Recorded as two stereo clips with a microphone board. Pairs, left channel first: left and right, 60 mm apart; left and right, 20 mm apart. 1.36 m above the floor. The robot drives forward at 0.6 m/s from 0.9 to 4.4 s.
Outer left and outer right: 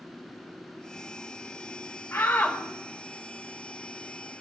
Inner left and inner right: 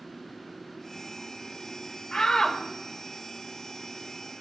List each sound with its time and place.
2.1 s a shout: 45° left (ahead or behind), 2 m; by 2.6 s 40° left (ahead or behind), 2.5 m